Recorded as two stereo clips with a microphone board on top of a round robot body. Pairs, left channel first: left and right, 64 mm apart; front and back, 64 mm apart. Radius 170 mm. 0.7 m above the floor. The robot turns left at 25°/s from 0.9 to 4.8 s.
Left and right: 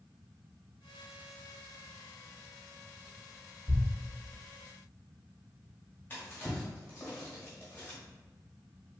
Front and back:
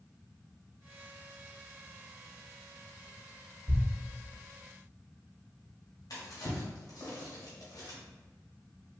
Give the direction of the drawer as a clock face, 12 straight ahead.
11 o'clock.